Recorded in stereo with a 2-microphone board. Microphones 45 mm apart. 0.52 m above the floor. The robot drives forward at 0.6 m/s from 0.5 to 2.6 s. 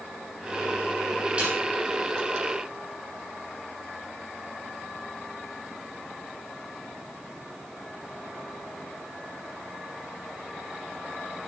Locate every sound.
1.4 s a snare drum: 25° right (ahead or behind), 7 m